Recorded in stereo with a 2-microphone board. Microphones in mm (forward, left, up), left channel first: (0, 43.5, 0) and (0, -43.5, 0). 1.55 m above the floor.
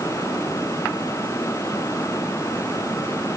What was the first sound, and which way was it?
Only background noise.